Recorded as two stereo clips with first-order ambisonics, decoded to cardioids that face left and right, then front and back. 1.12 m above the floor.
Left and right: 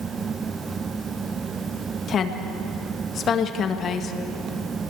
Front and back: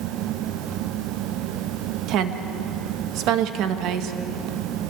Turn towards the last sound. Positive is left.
turn(degrees=150)